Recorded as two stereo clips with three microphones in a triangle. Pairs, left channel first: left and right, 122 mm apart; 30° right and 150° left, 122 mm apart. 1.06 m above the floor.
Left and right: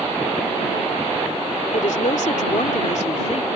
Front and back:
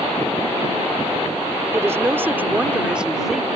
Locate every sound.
1.7 s a woman speaking: 80° left; by 3.5 s 60° left